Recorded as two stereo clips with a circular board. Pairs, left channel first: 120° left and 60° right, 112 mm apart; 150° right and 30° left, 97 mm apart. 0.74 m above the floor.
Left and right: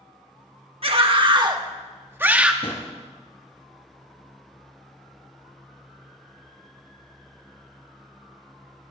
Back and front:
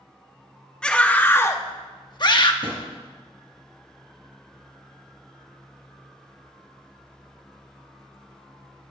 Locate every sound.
0.8 s a scream: 70° right, 1.6 m; by 2.5 s 140° right, 1.6 m
2.6 s a drawer: 70° left, 4 m